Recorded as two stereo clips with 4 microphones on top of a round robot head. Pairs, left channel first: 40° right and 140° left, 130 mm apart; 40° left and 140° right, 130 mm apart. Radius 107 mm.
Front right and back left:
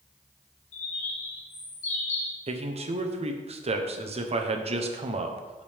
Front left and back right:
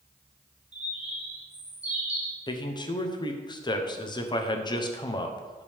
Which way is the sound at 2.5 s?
100° left.